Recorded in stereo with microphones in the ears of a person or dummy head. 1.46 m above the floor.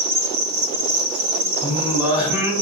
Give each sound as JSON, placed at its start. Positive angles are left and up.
{"t": 0.0, "sound": "an insect", "side_deg": -60, "distance_m": 2.0}
{"t": 1.6, "sound": "singing", "side_deg": -5, "distance_m": 2.0}